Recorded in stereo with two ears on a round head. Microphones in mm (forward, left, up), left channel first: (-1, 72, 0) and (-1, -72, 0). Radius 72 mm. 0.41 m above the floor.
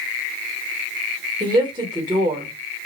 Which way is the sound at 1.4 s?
25° right (ahead or behind).